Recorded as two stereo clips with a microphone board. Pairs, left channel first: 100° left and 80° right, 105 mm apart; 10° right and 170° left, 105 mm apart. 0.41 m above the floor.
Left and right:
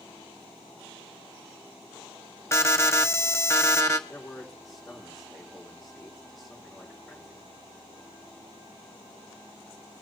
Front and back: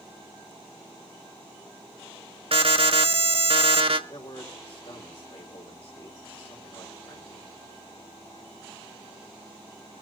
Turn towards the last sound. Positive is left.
turn(degrees=10)